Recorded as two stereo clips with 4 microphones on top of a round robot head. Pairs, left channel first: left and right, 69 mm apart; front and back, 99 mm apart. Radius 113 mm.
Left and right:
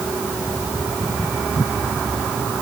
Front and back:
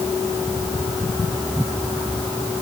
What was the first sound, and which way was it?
Only background noise.